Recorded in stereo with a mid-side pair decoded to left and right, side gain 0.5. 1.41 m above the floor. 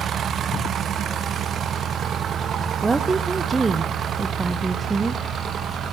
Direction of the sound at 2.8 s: 25° right.